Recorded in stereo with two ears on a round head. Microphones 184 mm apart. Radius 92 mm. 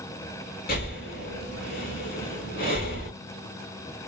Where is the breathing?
50° left (ahead or behind), 1.8 m.